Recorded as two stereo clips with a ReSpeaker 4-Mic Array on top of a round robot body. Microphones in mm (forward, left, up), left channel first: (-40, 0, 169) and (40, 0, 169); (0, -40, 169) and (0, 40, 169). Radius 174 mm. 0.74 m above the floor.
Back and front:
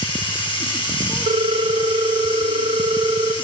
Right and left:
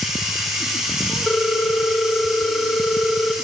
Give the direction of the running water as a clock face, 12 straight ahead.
6 o'clock.